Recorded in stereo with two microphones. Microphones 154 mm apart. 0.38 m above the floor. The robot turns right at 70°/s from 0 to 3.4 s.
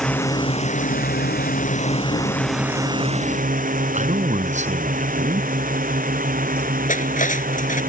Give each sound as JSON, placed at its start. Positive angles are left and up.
{"t": 0.0, "sound": "a drone", "side_deg": 5}
{"t": 3.9, "sound": "a man speaking", "side_deg": -50}
{"t": 6.9, "sound": "cutlery clinking", "side_deg": 60}